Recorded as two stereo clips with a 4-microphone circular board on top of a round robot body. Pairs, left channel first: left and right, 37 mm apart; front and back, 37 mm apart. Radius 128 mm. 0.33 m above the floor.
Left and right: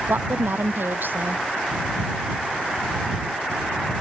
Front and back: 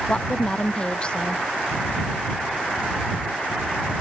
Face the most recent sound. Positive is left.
turn(degrees=-65)